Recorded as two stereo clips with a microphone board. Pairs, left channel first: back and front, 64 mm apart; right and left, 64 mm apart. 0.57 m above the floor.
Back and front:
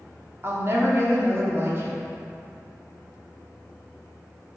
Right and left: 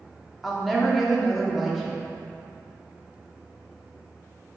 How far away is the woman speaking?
About 1.1 m.